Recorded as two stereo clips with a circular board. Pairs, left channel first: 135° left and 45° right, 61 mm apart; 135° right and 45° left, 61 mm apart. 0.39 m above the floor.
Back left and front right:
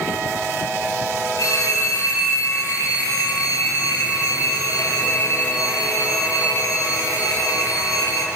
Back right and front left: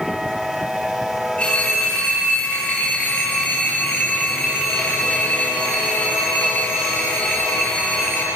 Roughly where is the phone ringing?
Behind left.